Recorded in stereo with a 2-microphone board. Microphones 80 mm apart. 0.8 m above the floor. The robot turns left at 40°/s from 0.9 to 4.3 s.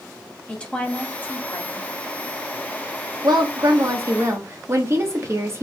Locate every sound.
0.5 s a woman speaking: 165° left, 1.1 m; by 1.9 s 125° left, 1.1 m
3.2 s a woman speaking: 95° right, 1.1 m; by 5.6 s 140° right, 1.1 m